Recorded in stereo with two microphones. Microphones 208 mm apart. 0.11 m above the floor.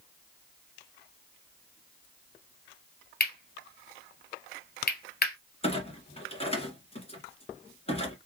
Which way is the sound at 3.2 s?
45° left (ahead or behind).